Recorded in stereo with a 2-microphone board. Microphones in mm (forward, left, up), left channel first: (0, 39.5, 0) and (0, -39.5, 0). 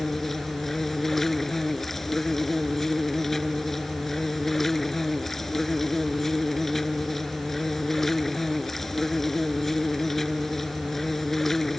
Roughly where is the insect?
Centre.